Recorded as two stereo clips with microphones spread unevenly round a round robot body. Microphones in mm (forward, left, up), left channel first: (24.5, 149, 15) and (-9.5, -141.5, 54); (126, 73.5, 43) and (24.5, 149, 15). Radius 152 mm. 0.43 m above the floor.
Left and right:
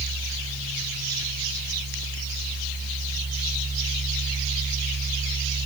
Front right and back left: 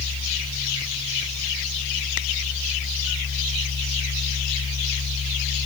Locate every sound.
Only background noise.